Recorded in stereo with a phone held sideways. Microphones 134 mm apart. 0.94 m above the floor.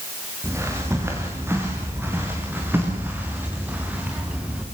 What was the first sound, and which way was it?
Footsteps, 20° right (ahead or behind).